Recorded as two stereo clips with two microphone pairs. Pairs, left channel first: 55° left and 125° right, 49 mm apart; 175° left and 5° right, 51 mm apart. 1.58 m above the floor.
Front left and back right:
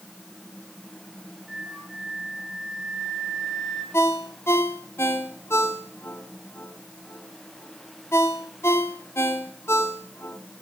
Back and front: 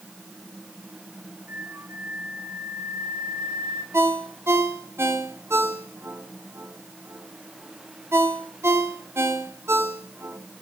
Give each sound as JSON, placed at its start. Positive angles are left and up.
{"t": 1.5, "sound": "a flute", "azimuth_deg": -40, "distance_m": 2.5}
{"t": 3.9, "sound": "a ringtone", "azimuth_deg": 25, "distance_m": 3.0}